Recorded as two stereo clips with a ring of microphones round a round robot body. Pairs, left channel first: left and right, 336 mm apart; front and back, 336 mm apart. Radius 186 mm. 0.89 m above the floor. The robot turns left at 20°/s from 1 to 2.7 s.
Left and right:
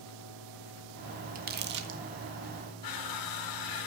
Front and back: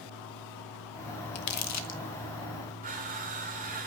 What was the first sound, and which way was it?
Crumpling, 25° right.